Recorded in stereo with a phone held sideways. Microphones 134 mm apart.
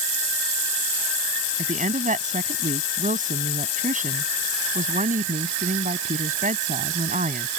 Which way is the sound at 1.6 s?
75° right (ahead or behind).